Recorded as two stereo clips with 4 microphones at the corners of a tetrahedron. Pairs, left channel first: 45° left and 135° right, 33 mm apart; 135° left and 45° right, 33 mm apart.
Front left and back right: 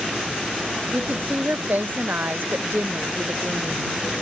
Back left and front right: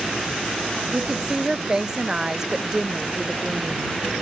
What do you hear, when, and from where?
0.9 s a woman speaking: 110° right; by 3.9 s 125° right